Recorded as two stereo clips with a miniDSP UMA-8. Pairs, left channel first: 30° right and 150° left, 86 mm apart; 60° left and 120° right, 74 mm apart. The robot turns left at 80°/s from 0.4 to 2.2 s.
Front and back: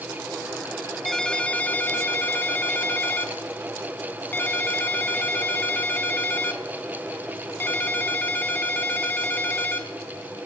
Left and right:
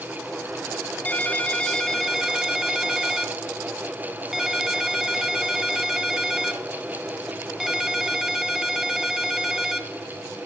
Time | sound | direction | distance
1.1 | a ringtone | 50° left | 0.9 m